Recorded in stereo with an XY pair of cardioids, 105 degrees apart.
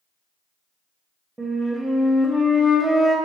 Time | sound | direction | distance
1.4 | a flute | 15° right | 0.8 m